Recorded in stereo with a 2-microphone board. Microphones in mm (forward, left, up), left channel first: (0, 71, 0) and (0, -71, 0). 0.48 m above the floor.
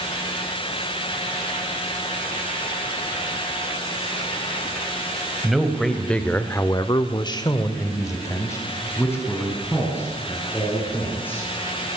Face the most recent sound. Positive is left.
turn(degrees=15)  # may be behind; listen again after turning